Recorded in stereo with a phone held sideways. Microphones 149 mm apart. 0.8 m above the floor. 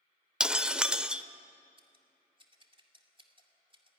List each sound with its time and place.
0.4 s breaking glass: 5° right (ahead or behind), 0.7 m
1.8 s scissors: 35° right (ahead or behind), 2.5 m